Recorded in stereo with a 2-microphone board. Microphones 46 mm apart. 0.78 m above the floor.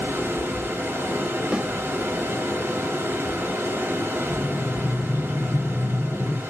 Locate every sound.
0.0 s running water: 75° right (ahead or behind), 2.0 m
1.5 s a snare drum: 20° right (ahead or behind), 0.7 m
4.3 s breathing: 70° left (ahead or behind), 0.6 m